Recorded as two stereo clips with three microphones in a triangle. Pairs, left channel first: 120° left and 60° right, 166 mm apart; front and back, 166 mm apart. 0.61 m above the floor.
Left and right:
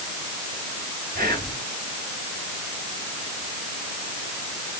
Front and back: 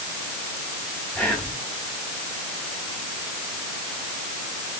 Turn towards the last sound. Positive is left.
turn(degrees=-85)